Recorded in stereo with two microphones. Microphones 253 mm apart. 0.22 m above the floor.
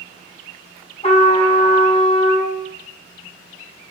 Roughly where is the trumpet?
Left.